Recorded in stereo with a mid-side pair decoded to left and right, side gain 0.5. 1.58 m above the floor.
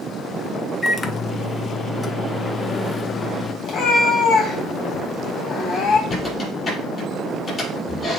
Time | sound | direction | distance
0.8 | a microwave | 30° left | 0.9 m
3.6 | a cat meowing | 55° left | 3.5 m
6.1 | a squeak | 35° left | 5.5 m